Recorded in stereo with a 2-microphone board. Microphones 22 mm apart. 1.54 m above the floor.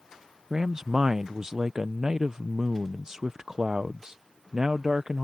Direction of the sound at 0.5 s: 30° right (ahead or behind).